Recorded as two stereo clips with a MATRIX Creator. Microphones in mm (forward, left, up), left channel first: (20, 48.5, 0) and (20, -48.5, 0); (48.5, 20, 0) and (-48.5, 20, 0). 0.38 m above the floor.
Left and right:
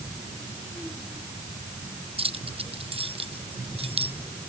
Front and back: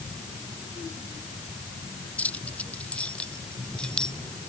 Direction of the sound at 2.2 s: 75° right.